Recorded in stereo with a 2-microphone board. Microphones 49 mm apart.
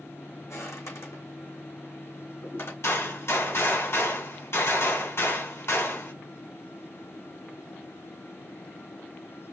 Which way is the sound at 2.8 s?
60° left (ahead or behind).